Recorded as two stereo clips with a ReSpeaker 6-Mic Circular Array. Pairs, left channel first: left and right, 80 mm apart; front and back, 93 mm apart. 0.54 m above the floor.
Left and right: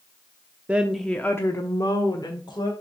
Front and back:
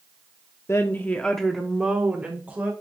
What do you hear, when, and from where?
0.7 s a woman speaking: 30° right, 0.8 m; by 2.7 s 110° left, 1.8 m